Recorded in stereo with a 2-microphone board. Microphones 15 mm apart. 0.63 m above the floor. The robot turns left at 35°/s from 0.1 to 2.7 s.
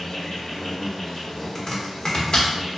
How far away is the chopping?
About 0.7 m.